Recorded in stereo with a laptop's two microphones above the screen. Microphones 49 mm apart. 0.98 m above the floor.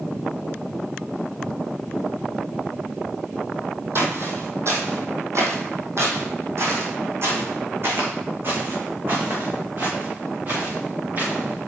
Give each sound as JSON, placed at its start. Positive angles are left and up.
{"t": 4.0, "sound": "footsteps", "side_deg": -55, "distance_m": 1.8}